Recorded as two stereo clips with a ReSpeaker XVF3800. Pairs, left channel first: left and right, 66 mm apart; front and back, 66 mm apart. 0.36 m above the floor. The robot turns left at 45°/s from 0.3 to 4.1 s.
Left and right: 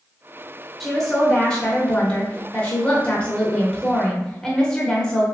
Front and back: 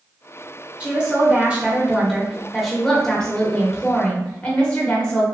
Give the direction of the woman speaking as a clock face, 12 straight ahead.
6 o'clock.